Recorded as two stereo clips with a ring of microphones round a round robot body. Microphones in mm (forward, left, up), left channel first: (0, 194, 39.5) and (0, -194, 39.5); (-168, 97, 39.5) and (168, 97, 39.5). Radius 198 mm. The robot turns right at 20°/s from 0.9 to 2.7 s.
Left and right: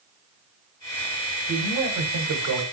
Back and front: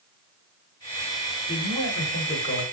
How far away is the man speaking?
About 1.2 m.